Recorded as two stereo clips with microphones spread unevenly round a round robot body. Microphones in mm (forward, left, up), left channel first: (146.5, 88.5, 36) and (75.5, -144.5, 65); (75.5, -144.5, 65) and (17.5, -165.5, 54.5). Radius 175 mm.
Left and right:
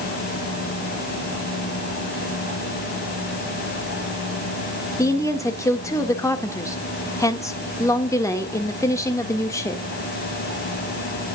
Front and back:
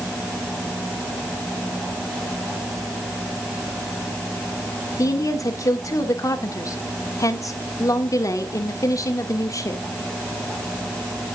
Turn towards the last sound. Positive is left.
turn(degrees=0)